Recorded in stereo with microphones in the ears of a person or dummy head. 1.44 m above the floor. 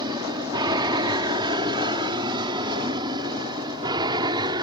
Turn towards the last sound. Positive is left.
turn(degrees=-25)  # may be behind; listen again after turning